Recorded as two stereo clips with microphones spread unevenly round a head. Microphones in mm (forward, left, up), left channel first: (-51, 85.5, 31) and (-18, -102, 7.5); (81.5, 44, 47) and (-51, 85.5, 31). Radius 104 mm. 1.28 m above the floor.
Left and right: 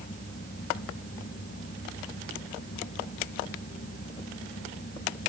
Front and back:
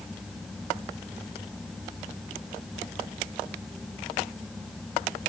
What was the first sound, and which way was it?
Only background noise.